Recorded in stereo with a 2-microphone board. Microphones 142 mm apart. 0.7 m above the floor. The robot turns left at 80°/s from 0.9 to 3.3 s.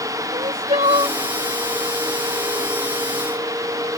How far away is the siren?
No siren in this recording.